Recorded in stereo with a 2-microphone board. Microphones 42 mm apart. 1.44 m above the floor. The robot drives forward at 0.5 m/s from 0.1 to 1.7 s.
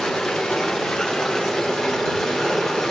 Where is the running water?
10° left (ahead or behind), 1.4 m; by 2.9 s 5° left (ahead or behind), 2 m.